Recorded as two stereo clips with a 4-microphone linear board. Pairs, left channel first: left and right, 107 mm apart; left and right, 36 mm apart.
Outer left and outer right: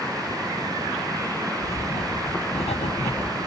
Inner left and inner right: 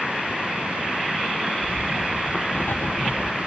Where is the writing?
85° left, 2.5 m.